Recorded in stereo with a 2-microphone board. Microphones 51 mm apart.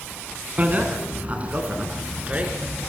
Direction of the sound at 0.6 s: 35° right (ahead or behind).